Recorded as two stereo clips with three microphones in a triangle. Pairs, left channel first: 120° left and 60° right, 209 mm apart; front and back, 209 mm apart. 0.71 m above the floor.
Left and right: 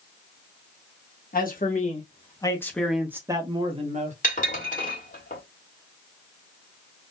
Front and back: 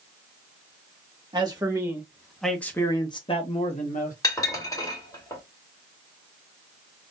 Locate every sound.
1.3 s a man speaking: 120° left, 1.2 m; by 4.1 s 25° right, 1.2 m
4.2 s dishes clattering: 70° left, 1.6 m